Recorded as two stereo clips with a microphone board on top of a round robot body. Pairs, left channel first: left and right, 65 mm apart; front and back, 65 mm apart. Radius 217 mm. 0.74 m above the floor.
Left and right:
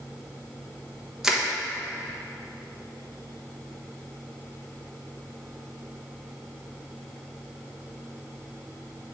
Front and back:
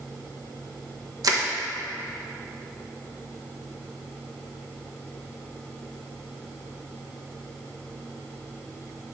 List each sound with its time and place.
1.2 s crushing: 170° right, 1.3 m